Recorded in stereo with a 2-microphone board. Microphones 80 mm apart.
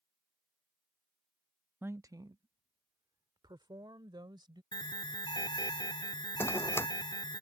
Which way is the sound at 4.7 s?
60° left (ahead or behind).